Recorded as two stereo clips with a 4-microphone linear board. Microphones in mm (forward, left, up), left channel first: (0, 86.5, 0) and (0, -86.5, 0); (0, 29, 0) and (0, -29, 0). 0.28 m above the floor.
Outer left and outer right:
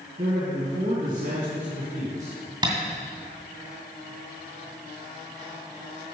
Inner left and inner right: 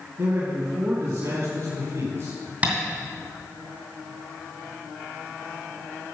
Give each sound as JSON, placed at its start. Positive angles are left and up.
{"t": 0.2, "sound": "a man speaking", "side_deg": -55, "distance_m": 2.0}
{"t": 2.6, "sound": "tapping", "side_deg": -30, "distance_m": 2.5}